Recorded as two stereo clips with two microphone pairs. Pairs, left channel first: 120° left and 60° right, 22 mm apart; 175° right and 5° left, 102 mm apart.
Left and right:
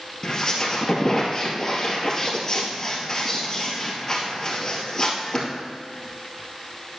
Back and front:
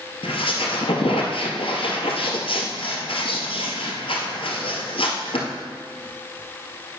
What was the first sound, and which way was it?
A squeak, 175° right.